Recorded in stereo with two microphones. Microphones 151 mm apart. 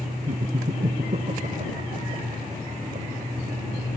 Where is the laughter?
50° right (ahead or behind); by 3.8 s 60° right (ahead or behind).